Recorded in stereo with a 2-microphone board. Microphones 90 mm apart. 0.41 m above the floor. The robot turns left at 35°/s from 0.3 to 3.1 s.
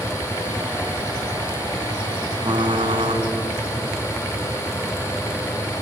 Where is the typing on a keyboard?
60° right (ahead or behind), 3 m; by 3.2 s 75° right (ahead or behind), 3 m.